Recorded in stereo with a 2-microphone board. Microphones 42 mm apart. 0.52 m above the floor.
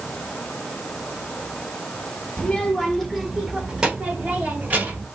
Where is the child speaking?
25° left (ahead or behind), 1.3 m; by 5.0 s 45° right (ahead or behind), 2.0 m.